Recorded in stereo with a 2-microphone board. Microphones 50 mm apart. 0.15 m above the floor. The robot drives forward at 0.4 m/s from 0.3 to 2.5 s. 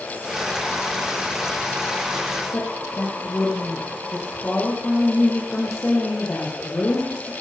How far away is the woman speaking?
About 5 m.